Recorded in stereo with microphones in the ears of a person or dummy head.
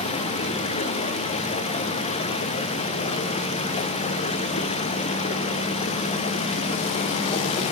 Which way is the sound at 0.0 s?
35° left (ahead or behind).